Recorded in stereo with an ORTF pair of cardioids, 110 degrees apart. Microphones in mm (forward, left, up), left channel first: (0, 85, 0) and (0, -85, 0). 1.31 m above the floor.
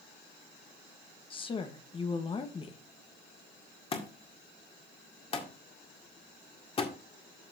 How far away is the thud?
About 1.9 m.